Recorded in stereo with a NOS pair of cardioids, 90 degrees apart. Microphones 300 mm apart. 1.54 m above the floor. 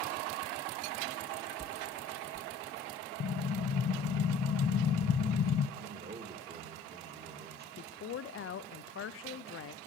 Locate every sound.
1.6 s a whoosh: 25° right, 1.4 m
3.2 s an explosion: 35° left, 0.6 m
5.8 s a man speaking: 30° right, 1.8 m
7.8 s a woman speaking: 45° left, 0.7 m